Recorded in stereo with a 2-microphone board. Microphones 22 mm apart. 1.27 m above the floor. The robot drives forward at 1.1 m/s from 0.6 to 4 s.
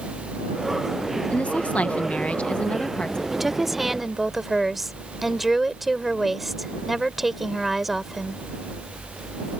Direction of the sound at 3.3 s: 10° right (ahead or behind).